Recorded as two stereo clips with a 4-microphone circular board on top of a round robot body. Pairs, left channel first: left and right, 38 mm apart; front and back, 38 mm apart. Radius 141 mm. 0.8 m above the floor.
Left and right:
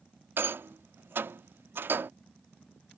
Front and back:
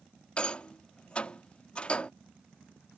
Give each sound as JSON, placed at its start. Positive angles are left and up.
{"t": 0.4, "sound": "a rattle", "azimuth_deg": -65}